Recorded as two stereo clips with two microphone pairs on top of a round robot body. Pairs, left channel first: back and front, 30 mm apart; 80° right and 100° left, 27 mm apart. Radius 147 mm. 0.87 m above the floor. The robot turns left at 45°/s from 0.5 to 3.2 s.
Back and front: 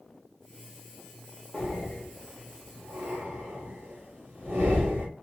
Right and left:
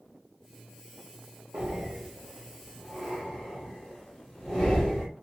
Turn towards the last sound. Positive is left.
turn(degrees=15)